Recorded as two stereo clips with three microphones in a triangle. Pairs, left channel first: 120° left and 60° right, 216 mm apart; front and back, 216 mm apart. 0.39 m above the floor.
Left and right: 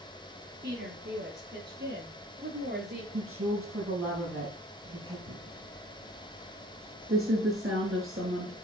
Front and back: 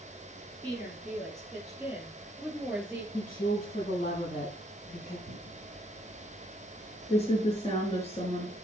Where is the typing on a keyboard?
60° right, 5.5 m.